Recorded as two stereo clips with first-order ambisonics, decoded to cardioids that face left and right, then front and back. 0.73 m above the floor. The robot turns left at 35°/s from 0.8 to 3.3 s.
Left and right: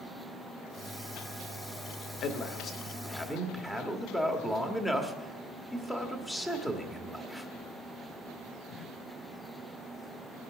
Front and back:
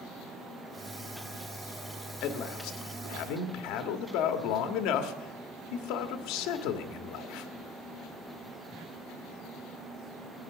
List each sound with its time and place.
2.2 s a man speaking: 45° left, 1.3 m; by 7.5 s 5° left, 1.3 m